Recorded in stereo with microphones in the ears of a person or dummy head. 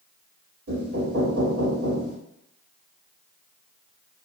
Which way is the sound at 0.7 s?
65° right (ahead or behind).